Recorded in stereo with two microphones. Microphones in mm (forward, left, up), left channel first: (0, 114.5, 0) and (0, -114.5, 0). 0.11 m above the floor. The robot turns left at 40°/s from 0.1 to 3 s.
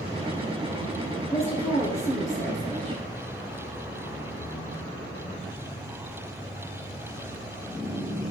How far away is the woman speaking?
About 2 m.